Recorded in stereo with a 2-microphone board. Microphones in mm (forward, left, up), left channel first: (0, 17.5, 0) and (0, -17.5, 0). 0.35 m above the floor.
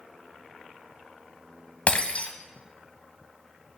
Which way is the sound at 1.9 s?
45° left (ahead or behind).